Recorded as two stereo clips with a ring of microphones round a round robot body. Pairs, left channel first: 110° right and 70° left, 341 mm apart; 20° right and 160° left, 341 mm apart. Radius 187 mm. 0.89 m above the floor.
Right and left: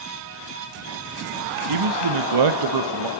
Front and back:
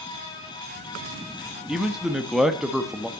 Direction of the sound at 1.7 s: 70° left.